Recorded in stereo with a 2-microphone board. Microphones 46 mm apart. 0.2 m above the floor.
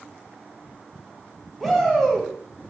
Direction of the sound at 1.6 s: Centre (ahead or behind).